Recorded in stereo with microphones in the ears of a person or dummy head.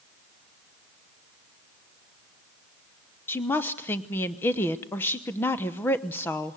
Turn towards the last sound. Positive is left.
turn(degrees=10)  # may be behind; listen again after turning